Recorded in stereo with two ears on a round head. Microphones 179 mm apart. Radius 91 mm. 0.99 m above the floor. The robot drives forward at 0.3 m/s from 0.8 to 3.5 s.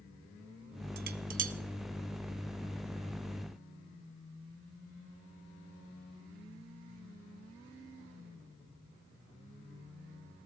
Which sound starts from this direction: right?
Dishes clattering, at 1.0 s.